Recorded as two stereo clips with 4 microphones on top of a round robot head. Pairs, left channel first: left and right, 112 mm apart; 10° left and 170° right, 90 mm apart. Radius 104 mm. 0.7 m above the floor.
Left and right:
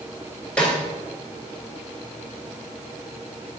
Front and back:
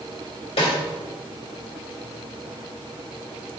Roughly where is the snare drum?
Ahead.